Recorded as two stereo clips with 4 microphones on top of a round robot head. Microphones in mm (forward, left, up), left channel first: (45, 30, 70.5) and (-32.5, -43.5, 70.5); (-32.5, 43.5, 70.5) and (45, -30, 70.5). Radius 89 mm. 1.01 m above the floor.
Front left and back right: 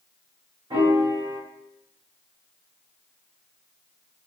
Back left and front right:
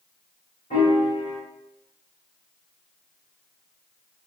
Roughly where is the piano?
Behind.